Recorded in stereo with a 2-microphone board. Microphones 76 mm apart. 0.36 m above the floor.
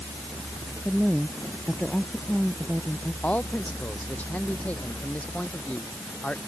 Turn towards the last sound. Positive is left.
turn(degrees=20)  # may be behind; listen again after turning